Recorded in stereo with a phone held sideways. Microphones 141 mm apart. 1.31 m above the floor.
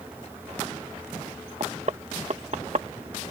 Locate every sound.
0.0 s a fan: 15° right (ahead or behind)
1.6 s knocking: 55° right (ahead or behind)